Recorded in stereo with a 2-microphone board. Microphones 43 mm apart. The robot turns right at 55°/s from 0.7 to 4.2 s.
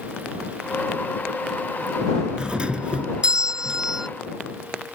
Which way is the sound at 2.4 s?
20° right (ahead or behind).